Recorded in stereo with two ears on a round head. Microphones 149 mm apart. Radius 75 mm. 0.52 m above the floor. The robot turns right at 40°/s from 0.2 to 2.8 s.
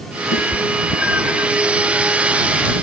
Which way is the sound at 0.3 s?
75° left (ahead or behind).